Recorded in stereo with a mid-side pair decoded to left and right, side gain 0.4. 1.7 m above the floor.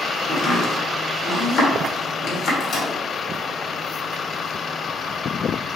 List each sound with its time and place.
0.3 s chopping: 70° left, 1.1 m
2.6 s a microwave: 65° left, 1.3 m